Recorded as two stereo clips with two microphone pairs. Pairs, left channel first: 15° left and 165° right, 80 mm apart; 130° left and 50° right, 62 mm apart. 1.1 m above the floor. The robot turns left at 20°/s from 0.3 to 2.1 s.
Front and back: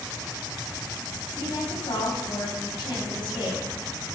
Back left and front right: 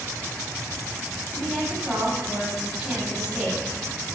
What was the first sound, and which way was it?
A woman speaking, 45° left.